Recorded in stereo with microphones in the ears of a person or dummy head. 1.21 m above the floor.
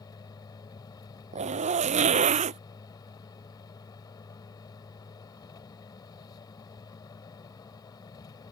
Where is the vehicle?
25° left (ahead or behind).